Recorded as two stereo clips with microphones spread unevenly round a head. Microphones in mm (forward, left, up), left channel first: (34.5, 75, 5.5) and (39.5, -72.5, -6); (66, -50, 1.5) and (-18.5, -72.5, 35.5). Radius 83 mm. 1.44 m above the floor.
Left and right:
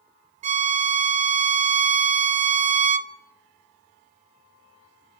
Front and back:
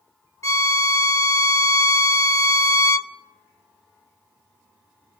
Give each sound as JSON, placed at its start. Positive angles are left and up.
{"t": 0.4, "sound": "a violin", "azimuth_deg": -45, "distance_m": 1.0}